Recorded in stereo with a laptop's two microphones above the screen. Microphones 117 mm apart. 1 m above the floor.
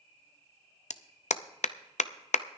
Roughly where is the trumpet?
I don't hear a trumpet.